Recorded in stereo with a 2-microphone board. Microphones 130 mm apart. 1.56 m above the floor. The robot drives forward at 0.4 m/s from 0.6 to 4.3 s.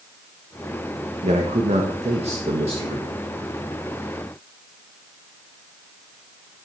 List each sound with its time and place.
1.2 s a man speaking: 65° right (ahead or behind), 1.3 m; by 3.1 s 45° right (ahead or behind), 1.7 m